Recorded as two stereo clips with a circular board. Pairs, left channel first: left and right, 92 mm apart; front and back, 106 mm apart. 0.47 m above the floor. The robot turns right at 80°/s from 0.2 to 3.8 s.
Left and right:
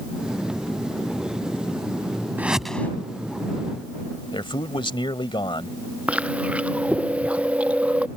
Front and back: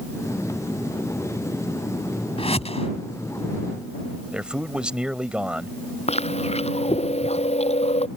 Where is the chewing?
15° right.